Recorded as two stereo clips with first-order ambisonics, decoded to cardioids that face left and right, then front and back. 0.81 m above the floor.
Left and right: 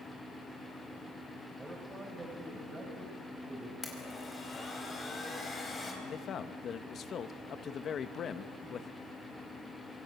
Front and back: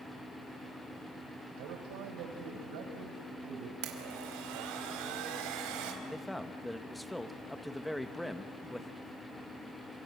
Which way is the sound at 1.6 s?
170° right.